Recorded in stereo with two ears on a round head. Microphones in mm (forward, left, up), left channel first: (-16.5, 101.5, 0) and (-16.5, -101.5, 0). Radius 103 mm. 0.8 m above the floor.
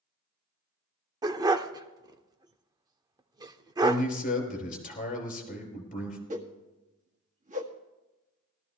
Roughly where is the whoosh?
Right.